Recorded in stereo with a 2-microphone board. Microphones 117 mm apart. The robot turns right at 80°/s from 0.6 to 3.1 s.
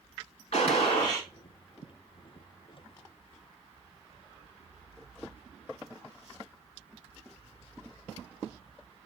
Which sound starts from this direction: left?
A gunshot, at 0.5 s.